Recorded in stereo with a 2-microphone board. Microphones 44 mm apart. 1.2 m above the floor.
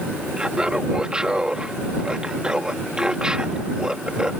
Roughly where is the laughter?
Right.